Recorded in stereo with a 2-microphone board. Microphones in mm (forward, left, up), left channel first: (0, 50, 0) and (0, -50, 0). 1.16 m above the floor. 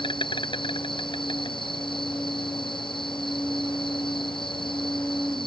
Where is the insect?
55° left (ahead or behind).